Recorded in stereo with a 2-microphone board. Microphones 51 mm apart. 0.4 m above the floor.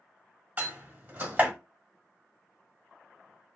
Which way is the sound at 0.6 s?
25° right (ahead or behind).